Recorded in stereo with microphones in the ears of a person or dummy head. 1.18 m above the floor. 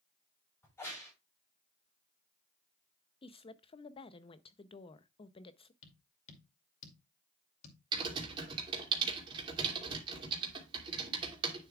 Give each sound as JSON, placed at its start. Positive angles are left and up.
{"t": 0.6, "sound": "a crack", "side_deg": 15, "distance_m": 5.0}
{"t": 3.2, "sound": "a woman speaking", "side_deg": 25, "distance_m": 0.6}
{"t": 5.8, "sound": "tapping", "side_deg": 40, "distance_m": 2.5}
{"t": 7.9, "sound": "typing on a keyboard", "side_deg": -30, "distance_m": 2.5}